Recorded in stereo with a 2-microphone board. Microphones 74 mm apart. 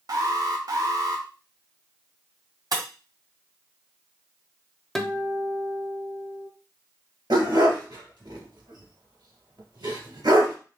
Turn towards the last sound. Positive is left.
turn(degrees=-70)  # may be behind; listen again after turning